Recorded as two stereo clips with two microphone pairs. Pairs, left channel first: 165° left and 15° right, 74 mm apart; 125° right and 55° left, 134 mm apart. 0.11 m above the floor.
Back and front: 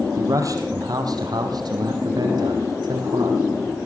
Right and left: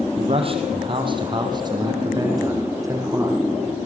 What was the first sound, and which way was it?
A man speaking, 20° left.